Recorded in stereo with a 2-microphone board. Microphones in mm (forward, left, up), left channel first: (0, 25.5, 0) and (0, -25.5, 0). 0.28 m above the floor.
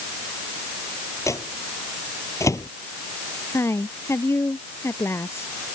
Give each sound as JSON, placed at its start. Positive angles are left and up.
{"t": 1.3, "sound": "a microwave", "side_deg": 75}
{"t": 3.5, "sound": "a woman speaking", "side_deg": 55}